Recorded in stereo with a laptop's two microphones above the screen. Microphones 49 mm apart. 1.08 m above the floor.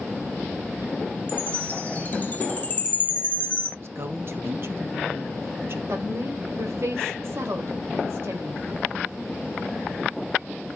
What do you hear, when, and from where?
1.3 s a chime: 35° left (ahead or behind), 2.5 m
3.8 s a woman speaking: 55° right (ahead or behind), 1.1 m
5.9 s a woman speaking: 65° right (ahead or behind), 3 m